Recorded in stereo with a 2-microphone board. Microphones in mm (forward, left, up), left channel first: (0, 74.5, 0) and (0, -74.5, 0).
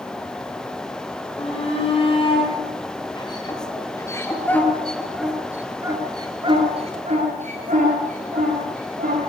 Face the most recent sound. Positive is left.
turn(degrees=-70)  # may be behind; listen again after turning